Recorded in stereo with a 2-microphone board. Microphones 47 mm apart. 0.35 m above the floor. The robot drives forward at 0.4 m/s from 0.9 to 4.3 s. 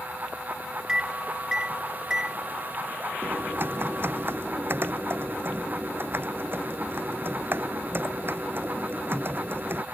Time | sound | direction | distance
0.9 | a microwave | 15° right (ahead or behind) | ?
3.2 | typing on a keyboard | 45° right (ahead or behind) | ?